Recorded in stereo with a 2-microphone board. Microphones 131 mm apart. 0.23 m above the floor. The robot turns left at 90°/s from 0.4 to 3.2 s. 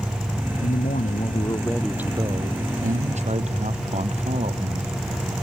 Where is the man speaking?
115° left; by 5.3 s 120° right.